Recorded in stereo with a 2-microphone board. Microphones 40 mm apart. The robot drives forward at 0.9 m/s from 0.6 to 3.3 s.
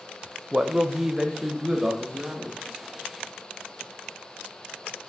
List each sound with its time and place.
0.5 s a man speaking: 20° right (ahead or behind), 0.8 m; by 2.6 s 5° right (ahead or behind), 2 m